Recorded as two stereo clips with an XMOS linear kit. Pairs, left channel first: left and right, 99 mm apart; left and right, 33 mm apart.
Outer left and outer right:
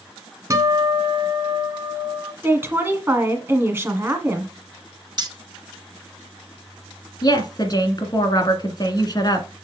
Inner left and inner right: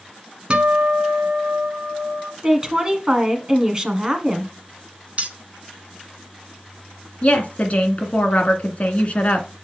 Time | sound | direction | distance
0.5 | a guitar | 35° right (ahead or behind) | 1.2 m
2.4 | a woman speaking | 25° right (ahead or behind) | 1.4 m
5.2 | keys jangling | 45° right (ahead or behind) | 1.2 m
7.2 | a woman speaking | 40° left (ahead or behind) | 1.9 m